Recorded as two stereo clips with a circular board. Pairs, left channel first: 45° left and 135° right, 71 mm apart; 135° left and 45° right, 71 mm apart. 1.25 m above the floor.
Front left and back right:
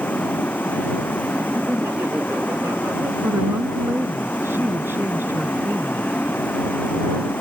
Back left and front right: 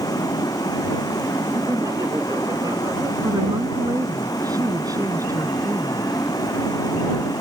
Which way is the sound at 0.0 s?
110° left.